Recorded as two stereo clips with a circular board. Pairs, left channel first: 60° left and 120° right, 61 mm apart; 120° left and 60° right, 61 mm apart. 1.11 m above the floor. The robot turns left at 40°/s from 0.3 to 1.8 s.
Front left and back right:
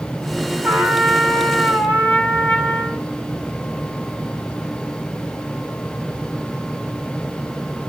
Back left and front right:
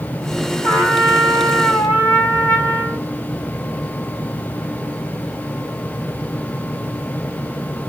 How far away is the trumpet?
About 3 m.